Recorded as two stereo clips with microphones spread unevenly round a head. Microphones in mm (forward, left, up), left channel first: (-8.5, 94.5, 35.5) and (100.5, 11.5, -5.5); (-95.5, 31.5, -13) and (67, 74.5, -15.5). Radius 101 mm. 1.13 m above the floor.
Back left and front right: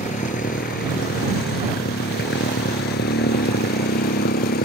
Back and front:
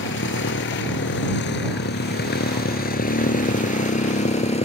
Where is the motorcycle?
165° right; by 4.7 s 145° left.